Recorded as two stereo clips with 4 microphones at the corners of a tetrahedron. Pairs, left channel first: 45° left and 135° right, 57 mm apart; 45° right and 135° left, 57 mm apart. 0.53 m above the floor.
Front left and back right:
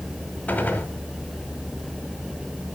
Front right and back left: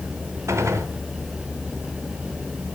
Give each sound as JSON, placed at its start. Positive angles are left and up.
{"t": 0.5, "sound": "a gunshot", "azimuth_deg": 110, "distance_m": 1.8}